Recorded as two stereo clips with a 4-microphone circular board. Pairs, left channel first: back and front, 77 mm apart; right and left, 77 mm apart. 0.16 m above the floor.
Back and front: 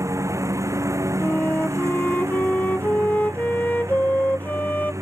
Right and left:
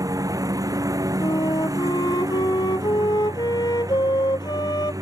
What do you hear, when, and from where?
0.0 s a lawn mower: 50° left
1.2 s a flute: 110° right